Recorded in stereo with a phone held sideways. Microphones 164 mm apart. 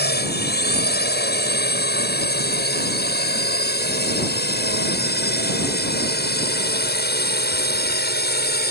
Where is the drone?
80° left.